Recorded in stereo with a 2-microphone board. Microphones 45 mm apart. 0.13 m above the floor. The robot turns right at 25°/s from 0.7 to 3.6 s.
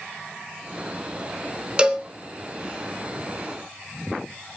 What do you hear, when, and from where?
1.8 s a cowbell: 20° right (ahead or behind), 1.4 m; by 2.1 s 15° right (ahead or behind), 1.4 m